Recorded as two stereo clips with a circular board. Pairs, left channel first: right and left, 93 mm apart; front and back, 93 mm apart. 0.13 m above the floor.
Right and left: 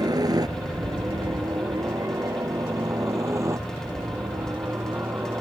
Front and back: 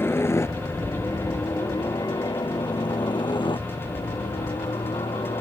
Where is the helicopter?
60° left; by 5.4 s 25° left.